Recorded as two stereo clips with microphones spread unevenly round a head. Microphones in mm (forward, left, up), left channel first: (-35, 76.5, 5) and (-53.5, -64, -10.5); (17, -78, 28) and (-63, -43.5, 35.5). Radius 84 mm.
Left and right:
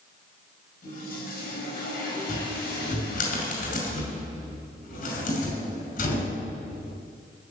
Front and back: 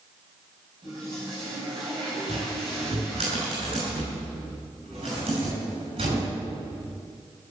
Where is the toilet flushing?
95° left, 6.5 m.